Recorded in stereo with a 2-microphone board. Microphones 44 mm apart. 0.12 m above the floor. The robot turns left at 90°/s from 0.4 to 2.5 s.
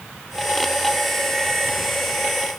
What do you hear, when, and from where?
Only background noise.